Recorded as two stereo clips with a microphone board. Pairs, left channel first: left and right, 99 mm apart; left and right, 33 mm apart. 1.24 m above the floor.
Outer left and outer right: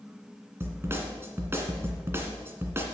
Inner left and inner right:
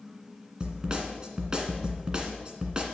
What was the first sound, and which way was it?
A snare drum, 25° right (ahead or behind).